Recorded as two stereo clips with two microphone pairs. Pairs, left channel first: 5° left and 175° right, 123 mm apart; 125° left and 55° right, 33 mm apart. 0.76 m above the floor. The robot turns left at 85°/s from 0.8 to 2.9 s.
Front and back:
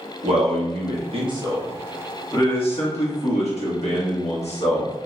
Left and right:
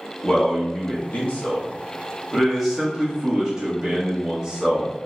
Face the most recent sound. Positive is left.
turn(degrees=10)